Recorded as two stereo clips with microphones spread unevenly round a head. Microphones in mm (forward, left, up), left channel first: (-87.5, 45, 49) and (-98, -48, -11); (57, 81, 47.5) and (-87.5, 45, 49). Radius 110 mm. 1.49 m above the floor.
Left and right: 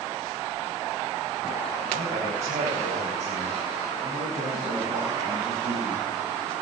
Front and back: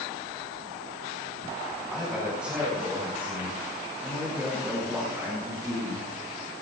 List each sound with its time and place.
1.9 s a man speaking: 80° right, 4 m; by 6.1 s 85° right, 7 m